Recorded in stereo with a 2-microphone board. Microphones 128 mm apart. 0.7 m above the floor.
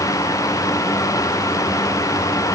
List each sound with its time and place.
Only background noise.